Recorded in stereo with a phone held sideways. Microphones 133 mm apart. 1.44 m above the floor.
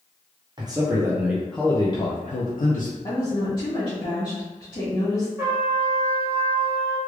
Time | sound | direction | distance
0.6 | a man speaking | 30° right (ahead or behind) | 1.0 m
3.0 | a woman speaking | 35° left (ahead or behind) | 1.7 m
5.4 | a trumpet | 20° right (ahead or behind) | 1.2 m